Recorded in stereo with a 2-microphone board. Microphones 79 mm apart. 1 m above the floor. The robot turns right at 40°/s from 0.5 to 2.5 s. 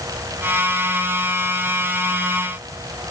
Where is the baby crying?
No baby crying in this recording.